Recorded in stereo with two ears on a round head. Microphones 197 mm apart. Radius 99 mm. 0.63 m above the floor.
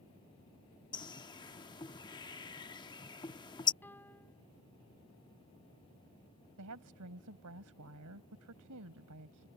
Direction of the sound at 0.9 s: 20° left (ahead or behind).